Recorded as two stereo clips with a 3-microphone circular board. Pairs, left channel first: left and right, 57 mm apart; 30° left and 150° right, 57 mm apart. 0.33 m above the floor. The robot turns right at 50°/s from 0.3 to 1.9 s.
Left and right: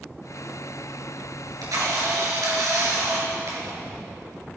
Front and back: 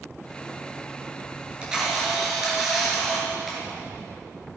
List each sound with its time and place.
1.4 s a camera shutter: 85° right, 4.5 m; by 3.8 s 65° right, 4.5 m